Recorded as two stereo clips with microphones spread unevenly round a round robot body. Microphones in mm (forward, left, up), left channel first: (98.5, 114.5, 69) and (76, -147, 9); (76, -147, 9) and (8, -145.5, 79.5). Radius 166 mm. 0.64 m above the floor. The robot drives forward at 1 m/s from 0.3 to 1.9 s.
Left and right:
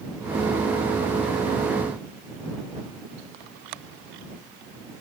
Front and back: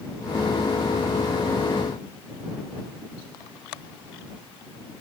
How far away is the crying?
I don't hear crying.